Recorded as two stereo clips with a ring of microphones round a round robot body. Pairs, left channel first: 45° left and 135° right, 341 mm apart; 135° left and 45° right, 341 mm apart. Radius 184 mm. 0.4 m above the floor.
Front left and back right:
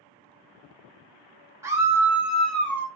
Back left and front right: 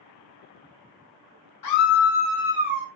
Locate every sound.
1.6 s a scream: 145° left, 1.5 m; by 2.9 s 35° right, 1.1 m